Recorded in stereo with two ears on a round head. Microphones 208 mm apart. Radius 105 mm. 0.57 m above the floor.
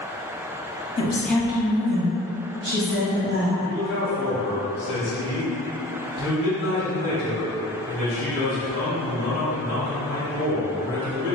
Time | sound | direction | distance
1.0 | a woman speaking | 25° left (ahead or behind) | 0.6 m
3.6 | a man speaking | 50° left (ahead or behind) | 1.9 m